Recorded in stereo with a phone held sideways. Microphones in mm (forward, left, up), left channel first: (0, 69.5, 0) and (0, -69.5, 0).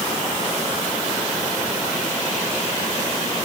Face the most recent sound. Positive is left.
No sound to turn to.